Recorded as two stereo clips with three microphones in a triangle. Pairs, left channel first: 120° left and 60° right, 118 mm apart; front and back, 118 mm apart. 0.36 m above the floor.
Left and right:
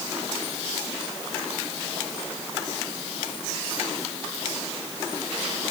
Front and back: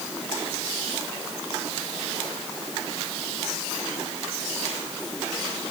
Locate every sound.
Only background noise.